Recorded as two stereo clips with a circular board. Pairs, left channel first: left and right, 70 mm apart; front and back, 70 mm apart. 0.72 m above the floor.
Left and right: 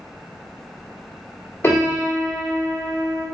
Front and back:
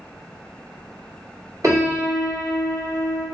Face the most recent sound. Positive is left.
turn(degrees=145)